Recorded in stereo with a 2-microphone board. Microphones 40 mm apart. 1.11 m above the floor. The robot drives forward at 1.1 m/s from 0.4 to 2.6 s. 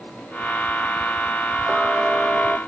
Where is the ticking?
15° right (ahead or behind); by 2.6 s 20° right (ahead or behind).